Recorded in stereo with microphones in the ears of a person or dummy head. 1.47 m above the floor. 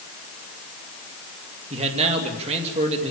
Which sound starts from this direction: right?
A man speaking, at 1.7 s.